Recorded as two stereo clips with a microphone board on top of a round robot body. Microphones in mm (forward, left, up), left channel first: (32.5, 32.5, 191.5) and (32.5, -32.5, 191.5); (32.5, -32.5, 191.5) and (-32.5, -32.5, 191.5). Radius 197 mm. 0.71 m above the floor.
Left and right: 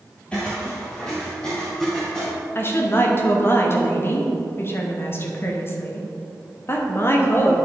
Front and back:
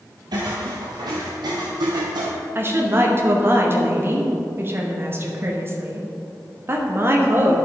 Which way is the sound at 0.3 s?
165° left.